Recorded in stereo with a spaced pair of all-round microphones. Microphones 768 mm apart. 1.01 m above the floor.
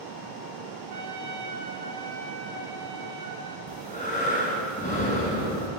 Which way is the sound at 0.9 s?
30° right (ahead or behind).